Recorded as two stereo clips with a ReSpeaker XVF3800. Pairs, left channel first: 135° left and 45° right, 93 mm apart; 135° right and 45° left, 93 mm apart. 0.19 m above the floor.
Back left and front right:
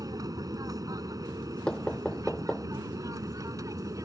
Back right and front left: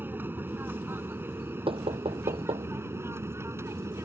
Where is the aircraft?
15° right; by 4.0 s 5° right.